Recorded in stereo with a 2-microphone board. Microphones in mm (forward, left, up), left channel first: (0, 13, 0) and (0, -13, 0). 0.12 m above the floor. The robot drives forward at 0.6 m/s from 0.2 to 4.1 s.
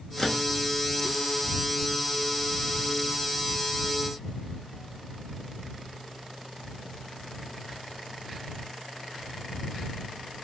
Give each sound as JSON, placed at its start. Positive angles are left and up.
{"t": 0.2, "sound": "a microwave", "side_deg": 15, "distance_m": 1.1}